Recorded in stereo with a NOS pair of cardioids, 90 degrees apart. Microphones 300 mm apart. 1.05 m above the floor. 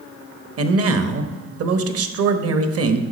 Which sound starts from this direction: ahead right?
A man speaking, at 0.6 s.